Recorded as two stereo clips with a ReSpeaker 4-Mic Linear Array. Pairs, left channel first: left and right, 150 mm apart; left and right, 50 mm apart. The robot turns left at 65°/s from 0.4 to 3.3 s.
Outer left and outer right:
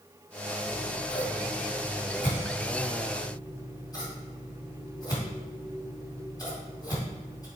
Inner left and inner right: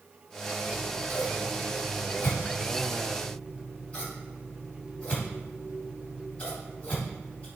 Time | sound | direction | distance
0.7 | scissors | 20° right (ahead or behind) | 2.5 m